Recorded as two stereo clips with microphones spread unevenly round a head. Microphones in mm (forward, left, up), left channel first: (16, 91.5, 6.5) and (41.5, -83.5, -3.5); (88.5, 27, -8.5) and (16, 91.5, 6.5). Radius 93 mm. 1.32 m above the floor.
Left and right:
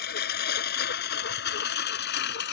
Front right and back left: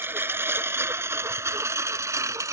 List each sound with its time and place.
0.0 s a lawn mower: 75° left; by 2.5 s 90° left